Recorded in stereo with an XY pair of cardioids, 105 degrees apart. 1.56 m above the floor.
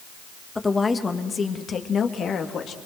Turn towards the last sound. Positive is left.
turn(degrees=60)